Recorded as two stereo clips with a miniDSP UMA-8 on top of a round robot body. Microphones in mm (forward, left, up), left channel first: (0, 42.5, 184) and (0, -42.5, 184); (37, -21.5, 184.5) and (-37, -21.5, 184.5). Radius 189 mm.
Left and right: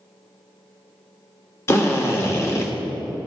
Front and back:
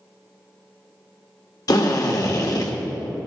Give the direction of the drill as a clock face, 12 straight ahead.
11 o'clock.